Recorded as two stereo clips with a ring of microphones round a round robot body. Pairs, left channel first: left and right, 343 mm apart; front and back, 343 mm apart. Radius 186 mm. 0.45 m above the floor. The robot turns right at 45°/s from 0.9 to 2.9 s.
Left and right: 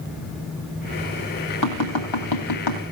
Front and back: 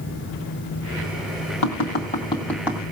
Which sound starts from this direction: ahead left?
Tapping, at 1.6 s.